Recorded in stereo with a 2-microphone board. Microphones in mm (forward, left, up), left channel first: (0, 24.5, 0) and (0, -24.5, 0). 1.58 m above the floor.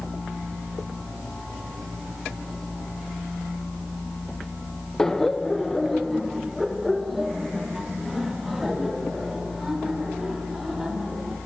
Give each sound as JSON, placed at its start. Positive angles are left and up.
{"t": 5.0, "sound": "laughter", "side_deg": 10, "distance_m": 0.7}